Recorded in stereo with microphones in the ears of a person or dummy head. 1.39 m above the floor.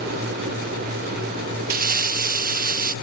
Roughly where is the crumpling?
Right.